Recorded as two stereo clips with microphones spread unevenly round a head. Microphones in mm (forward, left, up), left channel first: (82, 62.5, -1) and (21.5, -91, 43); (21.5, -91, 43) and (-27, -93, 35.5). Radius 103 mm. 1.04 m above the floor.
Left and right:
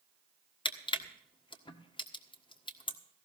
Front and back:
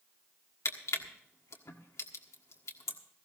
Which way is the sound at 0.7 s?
5° left.